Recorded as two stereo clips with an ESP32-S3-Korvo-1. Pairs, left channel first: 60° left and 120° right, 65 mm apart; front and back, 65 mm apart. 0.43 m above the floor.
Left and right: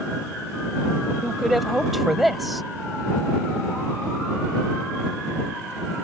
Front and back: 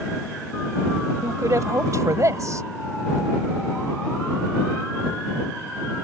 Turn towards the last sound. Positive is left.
turn(degrees=155)